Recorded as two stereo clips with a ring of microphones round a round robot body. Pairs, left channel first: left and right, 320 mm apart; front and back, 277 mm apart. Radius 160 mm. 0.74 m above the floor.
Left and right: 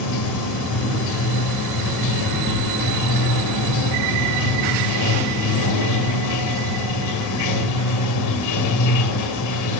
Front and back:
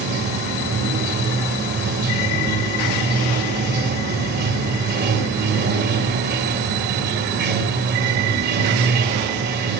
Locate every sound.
0.0 s running water: 125° left, 2.5 m